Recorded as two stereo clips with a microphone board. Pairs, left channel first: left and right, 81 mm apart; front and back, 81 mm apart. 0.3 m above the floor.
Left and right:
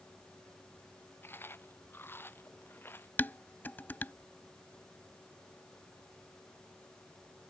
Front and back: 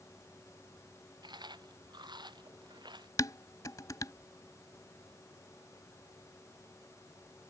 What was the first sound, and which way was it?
Chewing, 155° left.